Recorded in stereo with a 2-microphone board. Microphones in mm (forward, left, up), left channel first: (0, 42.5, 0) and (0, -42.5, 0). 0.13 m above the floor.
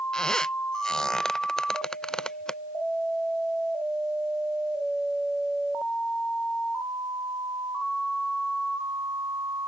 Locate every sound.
0.1 s a squeak: 5° left (ahead or behind)